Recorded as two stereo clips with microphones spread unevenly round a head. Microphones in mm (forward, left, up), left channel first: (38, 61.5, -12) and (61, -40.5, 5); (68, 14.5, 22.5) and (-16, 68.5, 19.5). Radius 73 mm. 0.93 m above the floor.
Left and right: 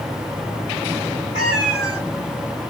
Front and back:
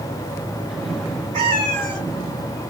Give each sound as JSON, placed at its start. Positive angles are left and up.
{"t": 1.3, "sound": "a cat meowing", "azimuth_deg": 180, "distance_m": 3.5}